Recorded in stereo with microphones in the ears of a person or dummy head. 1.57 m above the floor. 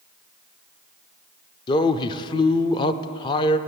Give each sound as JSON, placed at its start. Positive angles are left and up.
{"t": 1.7, "sound": "a man speaking", "side_deg": 25, "distance_m": 0.6}